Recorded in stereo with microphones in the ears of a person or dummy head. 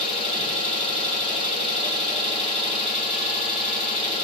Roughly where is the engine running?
Left.